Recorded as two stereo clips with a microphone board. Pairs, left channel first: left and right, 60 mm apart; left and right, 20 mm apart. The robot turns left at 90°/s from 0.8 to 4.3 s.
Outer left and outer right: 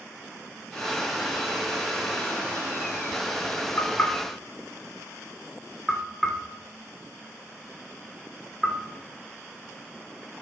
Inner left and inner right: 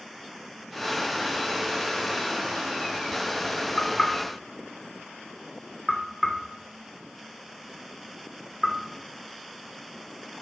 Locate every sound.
3.8 s knocking: 50° left (ahead or behind), 1.8 m; by 8.8 s centre (ahead or behind), 1.8 m